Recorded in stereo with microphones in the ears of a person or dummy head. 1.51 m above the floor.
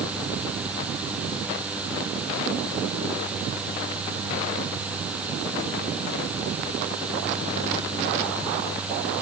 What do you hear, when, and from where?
Only background noise.